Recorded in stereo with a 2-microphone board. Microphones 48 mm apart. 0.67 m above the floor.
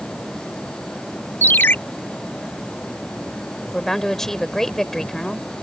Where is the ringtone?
40° left (ahead or behind).